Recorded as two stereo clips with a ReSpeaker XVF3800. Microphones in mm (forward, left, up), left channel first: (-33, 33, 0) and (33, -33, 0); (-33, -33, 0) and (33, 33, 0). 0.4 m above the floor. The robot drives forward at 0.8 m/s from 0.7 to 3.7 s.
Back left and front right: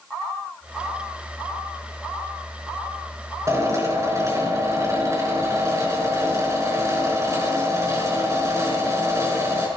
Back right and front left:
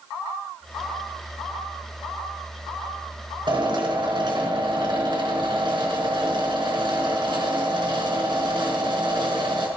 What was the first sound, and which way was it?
A drill, 10° left.